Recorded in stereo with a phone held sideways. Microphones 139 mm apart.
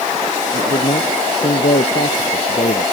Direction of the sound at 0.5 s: 65° left (ahead or behind).